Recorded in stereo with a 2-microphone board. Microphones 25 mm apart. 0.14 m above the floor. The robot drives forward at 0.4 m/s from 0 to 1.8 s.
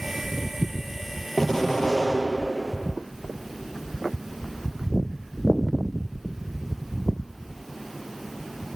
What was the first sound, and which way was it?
An explosion, 10° left (ahead or behind).